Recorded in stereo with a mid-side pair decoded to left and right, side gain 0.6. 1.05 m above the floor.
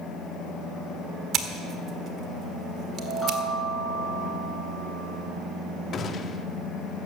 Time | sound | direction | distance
1.3 | scissors | 50° right | 1.4 m
3.0 | a chime | straight ahead | 7 m
5.9 | a gunshot | 40° left | 1.1 m